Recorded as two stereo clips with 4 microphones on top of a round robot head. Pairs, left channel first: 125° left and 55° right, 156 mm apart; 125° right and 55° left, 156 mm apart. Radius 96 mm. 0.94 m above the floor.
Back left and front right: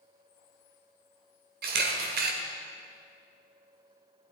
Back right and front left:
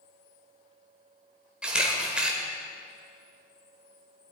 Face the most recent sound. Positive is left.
turn(degrees=-30)